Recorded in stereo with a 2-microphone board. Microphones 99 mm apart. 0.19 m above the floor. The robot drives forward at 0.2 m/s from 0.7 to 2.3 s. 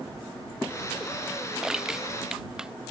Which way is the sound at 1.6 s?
5° right (ahead or behind).